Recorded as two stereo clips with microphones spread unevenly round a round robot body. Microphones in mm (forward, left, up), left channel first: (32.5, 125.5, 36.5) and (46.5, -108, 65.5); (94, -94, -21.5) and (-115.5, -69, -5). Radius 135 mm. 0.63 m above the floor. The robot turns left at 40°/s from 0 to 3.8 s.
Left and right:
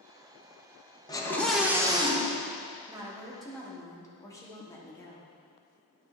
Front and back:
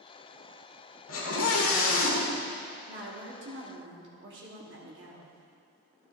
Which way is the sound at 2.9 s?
165° right.